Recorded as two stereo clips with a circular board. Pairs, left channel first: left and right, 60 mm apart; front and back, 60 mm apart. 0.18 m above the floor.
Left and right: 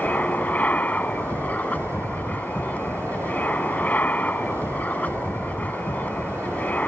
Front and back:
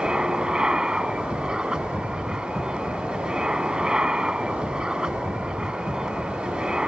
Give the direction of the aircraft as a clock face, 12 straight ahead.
8 o'clock.